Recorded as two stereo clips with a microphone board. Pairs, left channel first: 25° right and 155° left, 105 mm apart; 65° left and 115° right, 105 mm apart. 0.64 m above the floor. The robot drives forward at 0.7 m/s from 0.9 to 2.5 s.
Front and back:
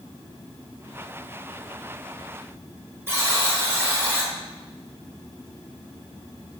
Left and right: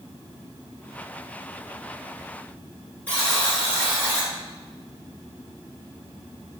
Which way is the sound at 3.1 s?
130° left.